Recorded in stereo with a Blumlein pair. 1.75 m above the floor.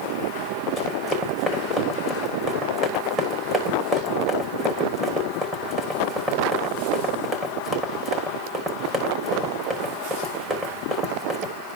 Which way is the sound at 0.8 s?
10° right.